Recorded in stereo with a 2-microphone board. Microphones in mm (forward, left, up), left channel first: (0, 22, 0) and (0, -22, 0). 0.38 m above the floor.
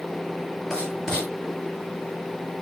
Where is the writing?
10° left (ahead or behind), 8 m.